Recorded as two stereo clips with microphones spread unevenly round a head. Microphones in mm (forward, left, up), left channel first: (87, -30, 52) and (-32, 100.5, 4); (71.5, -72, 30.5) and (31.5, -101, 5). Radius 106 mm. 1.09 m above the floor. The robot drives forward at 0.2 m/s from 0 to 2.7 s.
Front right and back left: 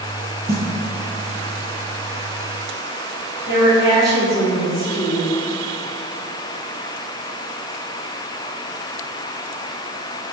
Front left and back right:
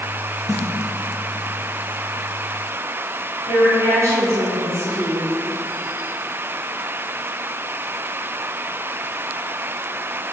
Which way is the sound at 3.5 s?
140° right.